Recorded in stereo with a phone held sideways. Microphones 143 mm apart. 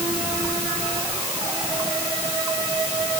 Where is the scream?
No scream in this recording.